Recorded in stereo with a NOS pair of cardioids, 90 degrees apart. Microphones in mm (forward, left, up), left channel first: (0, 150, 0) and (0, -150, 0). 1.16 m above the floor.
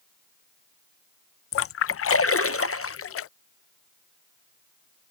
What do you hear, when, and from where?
1.5 s a splash: 50° left